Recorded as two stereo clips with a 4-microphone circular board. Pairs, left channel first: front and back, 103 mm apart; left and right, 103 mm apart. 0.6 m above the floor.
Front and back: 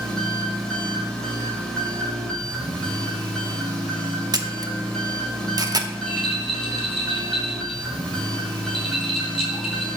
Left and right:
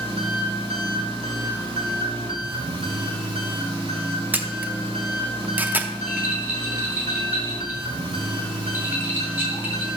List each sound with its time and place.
0.0 s an engine running: 85° right, 1.6 m
4.3 s a camera shutter: 155° right, 0.6 m
6.0 s a rattle: 20° right, 2 m